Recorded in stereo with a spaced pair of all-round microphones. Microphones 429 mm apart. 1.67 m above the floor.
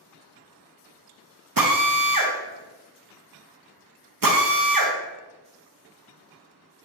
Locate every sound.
1.6 s a drill: 50° right (ahead or behind), 0.7 m